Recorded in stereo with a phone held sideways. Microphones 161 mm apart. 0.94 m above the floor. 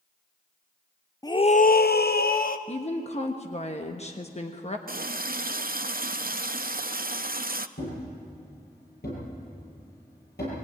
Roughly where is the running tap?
Right.